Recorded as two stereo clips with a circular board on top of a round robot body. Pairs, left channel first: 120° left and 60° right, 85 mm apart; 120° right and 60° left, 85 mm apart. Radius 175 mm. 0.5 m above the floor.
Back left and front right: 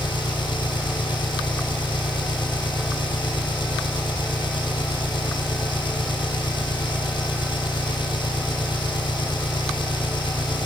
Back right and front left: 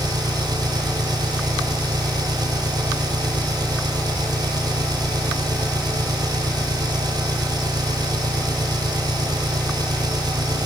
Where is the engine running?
100° left.